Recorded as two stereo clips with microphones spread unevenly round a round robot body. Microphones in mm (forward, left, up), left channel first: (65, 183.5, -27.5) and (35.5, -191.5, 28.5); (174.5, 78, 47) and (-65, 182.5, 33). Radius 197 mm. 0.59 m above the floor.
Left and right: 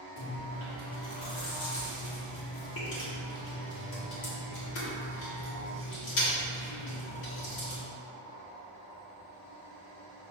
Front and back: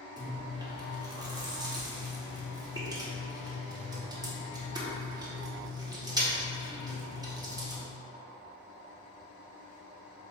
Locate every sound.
0.2 s chewing: 90° left, 1.0 m